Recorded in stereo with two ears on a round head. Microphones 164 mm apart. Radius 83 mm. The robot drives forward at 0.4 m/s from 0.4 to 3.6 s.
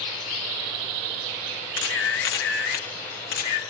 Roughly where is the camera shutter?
Left.